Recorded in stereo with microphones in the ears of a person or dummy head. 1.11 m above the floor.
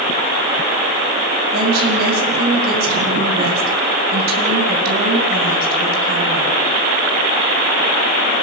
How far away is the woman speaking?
About 9 m.